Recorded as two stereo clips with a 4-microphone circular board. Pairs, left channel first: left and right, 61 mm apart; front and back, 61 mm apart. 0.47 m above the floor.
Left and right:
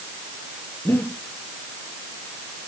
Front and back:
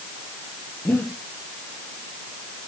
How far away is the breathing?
About 5 m.